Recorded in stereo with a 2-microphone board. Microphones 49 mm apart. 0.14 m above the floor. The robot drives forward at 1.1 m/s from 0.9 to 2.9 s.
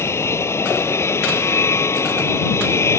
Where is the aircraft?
65° left (ahead or behind).